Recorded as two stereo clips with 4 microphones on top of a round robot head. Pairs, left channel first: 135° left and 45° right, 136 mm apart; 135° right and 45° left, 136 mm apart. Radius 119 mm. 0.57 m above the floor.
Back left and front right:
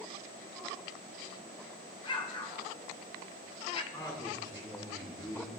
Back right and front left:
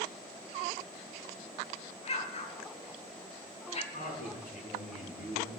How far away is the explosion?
About 1.8 m.